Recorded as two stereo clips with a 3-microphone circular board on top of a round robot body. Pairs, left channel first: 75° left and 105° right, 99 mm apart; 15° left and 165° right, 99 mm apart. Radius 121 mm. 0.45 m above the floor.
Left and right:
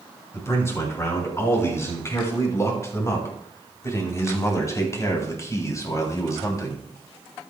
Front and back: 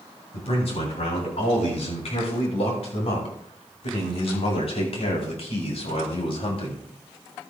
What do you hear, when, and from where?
0.3 s a man speaking: 10° left, 7 m; by 6.9 s 20° left, 4 m